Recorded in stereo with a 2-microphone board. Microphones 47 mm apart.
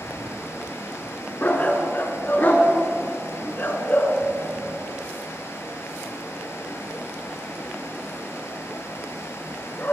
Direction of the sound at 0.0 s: 70° left (ahead or behind).